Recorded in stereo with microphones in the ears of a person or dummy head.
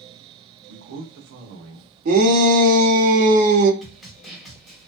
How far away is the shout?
About 1.0 m.